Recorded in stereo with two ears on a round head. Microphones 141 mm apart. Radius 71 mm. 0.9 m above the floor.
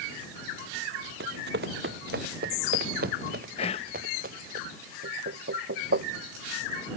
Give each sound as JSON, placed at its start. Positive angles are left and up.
{"t": 1.2, "sound": "running footsteps", "side_deg": -75}
{"t": 3.6, "sound": "whispering", "side_deg": 40}
{"t": 5.0, "sound": "knocking", "side_deg": -85}